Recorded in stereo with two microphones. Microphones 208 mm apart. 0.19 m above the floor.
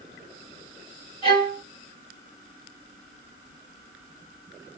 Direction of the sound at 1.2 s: 25° left (ahead or behind).